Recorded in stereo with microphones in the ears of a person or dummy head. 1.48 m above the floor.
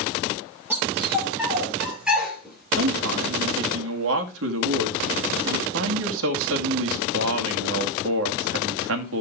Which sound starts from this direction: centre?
A dog barking, at 0.7 s.